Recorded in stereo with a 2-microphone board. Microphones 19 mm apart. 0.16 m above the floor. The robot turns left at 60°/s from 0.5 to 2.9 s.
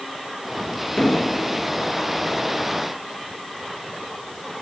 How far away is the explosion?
About 3 m.